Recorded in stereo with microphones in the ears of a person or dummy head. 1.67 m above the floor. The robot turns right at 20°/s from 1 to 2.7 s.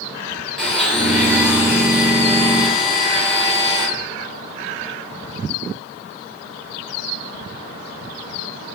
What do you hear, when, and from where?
0.6 s a blender: 5° left, 1.2 m; by 3.9 s 40° left, 1.2 m